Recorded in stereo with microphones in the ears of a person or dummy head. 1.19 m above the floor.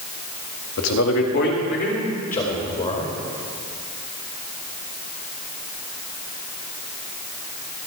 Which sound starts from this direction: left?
A man speaking, at 0.8 s.